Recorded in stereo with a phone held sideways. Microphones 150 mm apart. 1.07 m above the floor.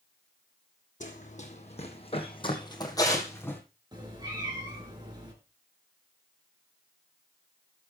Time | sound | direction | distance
1.0 | running footsteps | 55° left (ahead or behind) | 2.0 m
3.9 | a cat meowing | 30° right (ahead or behind) | 3.5 m